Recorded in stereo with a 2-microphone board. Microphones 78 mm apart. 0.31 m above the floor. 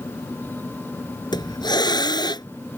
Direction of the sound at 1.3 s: 70° left (ahead or behind).